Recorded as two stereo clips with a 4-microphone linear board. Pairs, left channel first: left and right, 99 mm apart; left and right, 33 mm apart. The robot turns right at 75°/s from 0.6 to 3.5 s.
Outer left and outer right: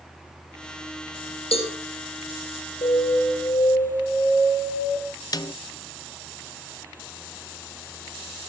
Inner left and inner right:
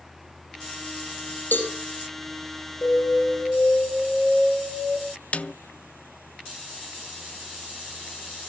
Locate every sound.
1.5 s a cowbell: 70° left (ahead or behind), 4.5 m; by 1.7 s 85° left, 4.5 m
2.8 s an alarm: 100° left, 8 m; by 5.0 s 150° left, 8 m
5.3 s a snare drum: 40° left (ahead or behind), 0.5 m